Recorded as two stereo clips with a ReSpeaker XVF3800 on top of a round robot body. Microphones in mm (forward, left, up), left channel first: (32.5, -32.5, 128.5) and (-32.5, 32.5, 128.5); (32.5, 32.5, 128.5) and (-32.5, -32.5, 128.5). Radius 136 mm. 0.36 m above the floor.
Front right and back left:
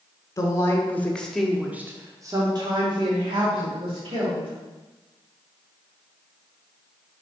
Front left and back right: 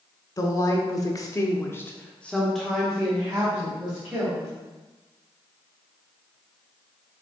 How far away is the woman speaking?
About 2 m.